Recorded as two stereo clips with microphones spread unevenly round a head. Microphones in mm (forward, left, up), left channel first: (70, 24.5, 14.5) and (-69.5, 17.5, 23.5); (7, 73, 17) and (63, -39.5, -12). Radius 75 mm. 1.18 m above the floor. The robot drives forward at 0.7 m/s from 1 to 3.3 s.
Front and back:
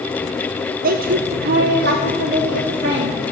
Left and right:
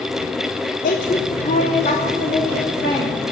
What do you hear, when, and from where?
0.8 s a woman speaking: 160° left, 0.7 m; by 3.2 s 175° left, 2 m